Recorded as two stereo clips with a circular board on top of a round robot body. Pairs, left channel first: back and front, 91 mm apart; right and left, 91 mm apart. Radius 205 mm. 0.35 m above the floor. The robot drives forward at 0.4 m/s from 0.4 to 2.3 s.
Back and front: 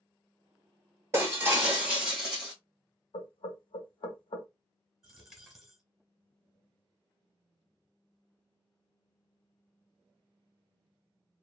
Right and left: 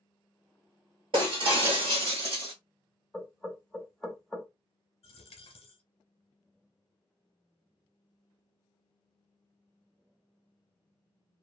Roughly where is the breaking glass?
Ahead left.